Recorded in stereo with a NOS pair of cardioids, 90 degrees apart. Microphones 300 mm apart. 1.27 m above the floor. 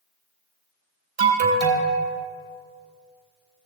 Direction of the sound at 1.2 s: 60° right.